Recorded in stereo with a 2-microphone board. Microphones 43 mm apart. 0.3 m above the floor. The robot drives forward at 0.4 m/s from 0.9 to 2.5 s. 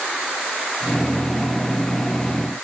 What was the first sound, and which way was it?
Only background noise.